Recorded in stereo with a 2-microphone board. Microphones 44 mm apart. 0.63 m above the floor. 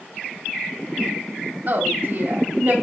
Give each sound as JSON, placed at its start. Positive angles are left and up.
{"t": 1.7, "sound": "a woman speaking", "side_deg": -50, "distance_m": 1.8}